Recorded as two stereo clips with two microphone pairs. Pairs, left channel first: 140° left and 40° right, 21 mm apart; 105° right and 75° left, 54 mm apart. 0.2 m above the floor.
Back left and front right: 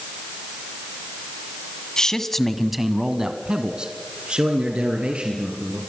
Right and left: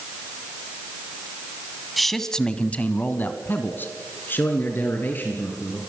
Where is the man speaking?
165° left, 1.8 m; by 5.8 s 50° right, 5.5 m.